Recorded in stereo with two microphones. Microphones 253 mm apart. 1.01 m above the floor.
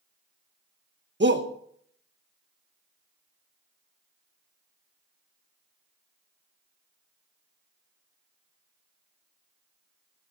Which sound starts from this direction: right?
A shout, at 1.2 s.